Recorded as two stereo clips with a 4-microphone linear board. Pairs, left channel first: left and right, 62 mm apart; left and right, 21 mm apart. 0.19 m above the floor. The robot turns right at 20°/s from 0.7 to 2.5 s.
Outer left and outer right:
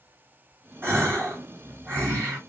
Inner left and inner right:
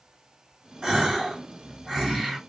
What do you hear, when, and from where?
0.8 s a gasp: 75° right, 2.0 m; by 2.4 s 45° right, 2.0 m